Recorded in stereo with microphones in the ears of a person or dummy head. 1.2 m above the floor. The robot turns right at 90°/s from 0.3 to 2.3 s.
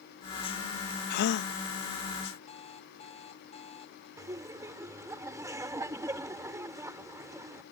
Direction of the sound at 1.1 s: 70° left.